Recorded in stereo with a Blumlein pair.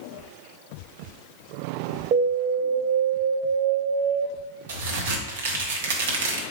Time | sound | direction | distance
2.1 | an alarm | 40° right | 0.5 m
4.7 | a crack | 60° right | 0.9 m